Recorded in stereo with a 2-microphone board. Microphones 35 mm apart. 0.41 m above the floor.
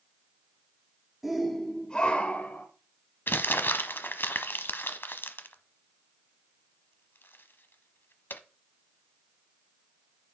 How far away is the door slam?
No door slam in this recording.